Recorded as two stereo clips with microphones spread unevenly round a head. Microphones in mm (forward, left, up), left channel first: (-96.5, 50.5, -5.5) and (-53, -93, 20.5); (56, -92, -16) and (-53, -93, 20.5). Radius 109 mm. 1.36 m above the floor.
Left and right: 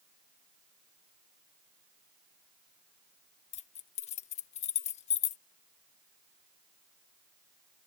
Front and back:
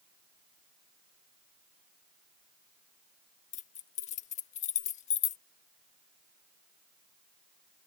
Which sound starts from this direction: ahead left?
Keys jangling, at 3.5 s.